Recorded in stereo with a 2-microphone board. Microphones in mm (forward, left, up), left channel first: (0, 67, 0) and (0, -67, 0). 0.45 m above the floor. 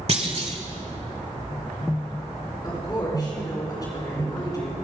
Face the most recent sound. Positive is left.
turn(degrees=30)  # may be behind; listen again after turning